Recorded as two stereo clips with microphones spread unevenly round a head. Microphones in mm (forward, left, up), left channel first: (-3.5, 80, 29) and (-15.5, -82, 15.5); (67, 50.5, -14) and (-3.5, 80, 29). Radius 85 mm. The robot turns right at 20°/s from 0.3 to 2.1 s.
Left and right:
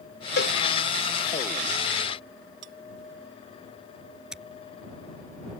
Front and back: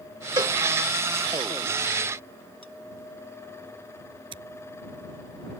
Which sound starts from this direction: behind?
Scissors, at 4.3 s.